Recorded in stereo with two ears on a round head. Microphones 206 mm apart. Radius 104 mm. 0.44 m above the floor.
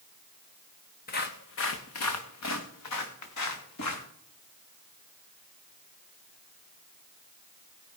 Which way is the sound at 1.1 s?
40° left (ahead or behind).